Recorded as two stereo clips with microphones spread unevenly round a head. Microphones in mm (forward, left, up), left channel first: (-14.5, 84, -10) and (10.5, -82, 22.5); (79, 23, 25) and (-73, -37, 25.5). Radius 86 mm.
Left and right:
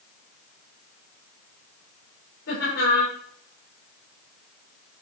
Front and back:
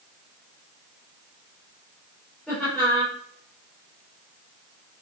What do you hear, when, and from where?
2.5 s laughter: 105° left, 7.5 m